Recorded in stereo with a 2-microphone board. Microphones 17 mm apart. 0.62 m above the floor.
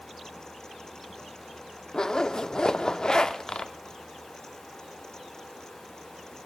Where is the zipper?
45° left (ahead or behind), 0.8 m.